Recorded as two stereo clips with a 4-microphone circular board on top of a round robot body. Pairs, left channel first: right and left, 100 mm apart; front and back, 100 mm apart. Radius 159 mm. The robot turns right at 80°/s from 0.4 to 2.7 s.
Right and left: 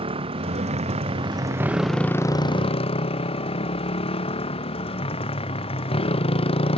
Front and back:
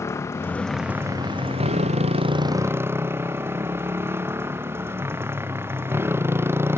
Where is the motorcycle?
65° left; by 6.8 s 115° right.